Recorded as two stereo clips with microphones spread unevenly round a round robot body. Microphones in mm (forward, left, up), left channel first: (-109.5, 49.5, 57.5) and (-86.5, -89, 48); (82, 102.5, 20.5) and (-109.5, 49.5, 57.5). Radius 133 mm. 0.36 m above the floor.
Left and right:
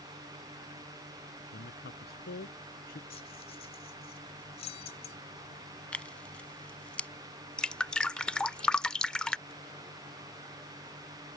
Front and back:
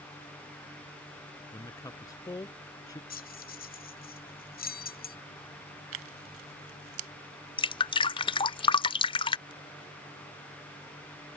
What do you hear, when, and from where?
1.5 s a man speaking: 90° left
3.1 s keys jangling: 45° left
5.9 s tearing paper: straight behind
7.6 s dripping: 15° left